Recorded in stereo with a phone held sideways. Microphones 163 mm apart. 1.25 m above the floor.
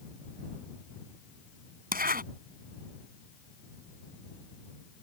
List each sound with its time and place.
1.9 s a zipper: 60° right (ahead or behind)